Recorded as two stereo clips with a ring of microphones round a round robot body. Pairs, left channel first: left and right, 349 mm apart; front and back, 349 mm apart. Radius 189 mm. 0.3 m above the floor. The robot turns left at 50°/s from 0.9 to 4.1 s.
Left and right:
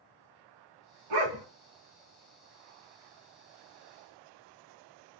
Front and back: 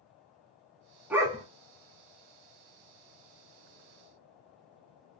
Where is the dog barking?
95° right, 1.1 m; by 1.4 s 110° right, 1.1 m.